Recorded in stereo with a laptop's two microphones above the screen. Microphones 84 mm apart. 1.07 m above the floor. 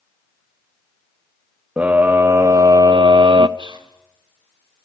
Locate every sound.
1.8 s a scream: 20° right (ahead or behind), 0.9 m; by 3.5 s 70° right (ahead or behind), 0.8 m
3.6 s whispering: 80° right, 4 m